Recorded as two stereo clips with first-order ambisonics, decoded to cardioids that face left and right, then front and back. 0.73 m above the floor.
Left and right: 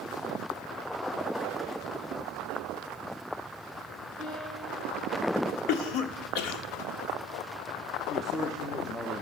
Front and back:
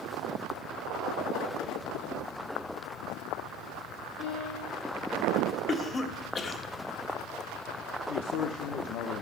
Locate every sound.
4.2 s a piano: 30° left, 7.5 m
5.7 s a cough: 70° left, 1.3 m
8.1 s a man speaking: 10° left, 0.7 m